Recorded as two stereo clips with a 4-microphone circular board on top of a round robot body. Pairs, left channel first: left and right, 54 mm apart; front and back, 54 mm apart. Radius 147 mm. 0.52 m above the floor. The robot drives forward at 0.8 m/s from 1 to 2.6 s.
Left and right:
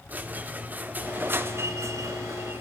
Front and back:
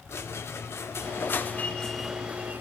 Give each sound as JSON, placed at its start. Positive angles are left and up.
{"t": 0.1, "sound": "a squeak", "azimuth_deg": -35, "distance_m": 1.0}